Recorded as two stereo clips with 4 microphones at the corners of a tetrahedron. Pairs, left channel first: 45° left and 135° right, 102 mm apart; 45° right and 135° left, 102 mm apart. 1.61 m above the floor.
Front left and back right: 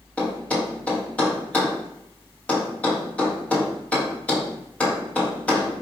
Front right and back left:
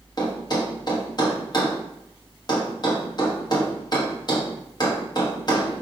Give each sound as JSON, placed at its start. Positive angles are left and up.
{"t": 0.2, "sound": "a thud", "azimuth_deg": -25, "distance_m": 1.1}